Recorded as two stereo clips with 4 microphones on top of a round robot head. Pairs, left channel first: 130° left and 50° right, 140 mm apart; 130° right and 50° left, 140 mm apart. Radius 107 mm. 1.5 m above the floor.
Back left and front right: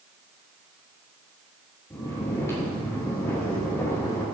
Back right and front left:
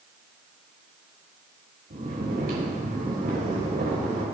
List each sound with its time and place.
1.9 s snoring: 60° left, 5.5 m